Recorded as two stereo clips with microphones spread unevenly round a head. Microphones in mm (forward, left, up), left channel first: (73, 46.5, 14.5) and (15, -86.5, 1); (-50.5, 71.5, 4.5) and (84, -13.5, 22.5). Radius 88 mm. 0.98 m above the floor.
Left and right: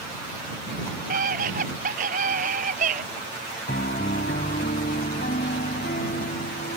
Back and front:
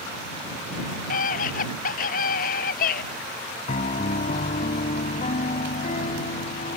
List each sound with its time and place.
1.1 s a scream: 165° right
3.7 s a piano: 105° left